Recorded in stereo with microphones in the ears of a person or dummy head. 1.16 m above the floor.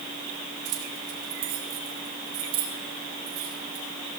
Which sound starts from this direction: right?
Keys jangling, at 0.7 s.